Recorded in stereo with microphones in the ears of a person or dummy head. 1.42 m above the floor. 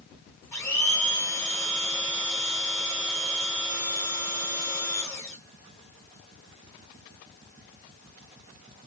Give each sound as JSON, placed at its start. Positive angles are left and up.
{"t": 0.5, "sound": "a blender", "side_deg": 10, "distance_m": 1.4}